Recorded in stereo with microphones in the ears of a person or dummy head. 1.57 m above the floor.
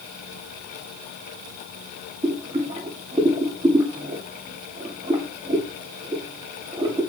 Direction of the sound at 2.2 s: 25° right (ahead or behind).